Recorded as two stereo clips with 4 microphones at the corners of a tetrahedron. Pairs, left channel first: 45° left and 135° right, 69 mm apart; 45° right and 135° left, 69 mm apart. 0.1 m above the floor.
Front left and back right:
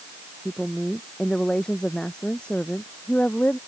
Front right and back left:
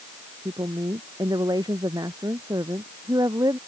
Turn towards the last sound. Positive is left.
turn(degrees=115)